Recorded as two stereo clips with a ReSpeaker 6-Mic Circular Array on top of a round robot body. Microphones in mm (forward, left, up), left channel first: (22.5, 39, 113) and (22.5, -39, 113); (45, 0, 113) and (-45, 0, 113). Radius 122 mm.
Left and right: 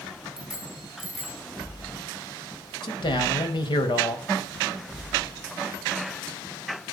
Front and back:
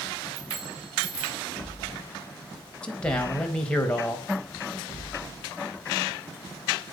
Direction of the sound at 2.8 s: 80° left.